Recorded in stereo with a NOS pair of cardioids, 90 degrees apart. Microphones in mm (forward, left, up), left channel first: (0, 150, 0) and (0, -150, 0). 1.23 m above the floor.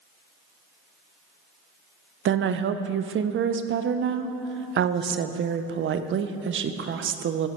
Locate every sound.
2.2 s a woman speaking: 40° right, 0.5 m